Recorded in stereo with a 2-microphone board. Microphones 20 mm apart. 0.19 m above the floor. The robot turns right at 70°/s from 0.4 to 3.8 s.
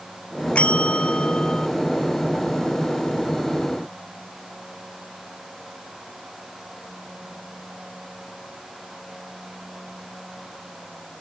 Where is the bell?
70° left; by 1.7 s 150° left.